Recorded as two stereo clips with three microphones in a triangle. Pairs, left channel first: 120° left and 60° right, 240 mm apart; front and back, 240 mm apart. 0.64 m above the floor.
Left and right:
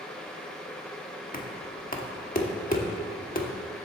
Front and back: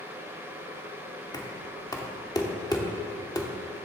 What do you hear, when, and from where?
1.3 s knocking: 70° left, 1.0 m